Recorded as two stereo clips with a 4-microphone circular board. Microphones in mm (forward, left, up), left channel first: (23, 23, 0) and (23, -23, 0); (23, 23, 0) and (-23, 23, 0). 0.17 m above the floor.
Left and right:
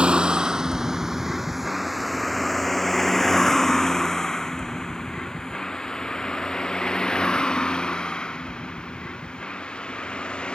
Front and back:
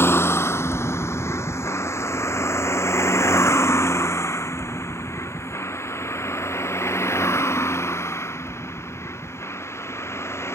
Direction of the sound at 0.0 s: 25° right.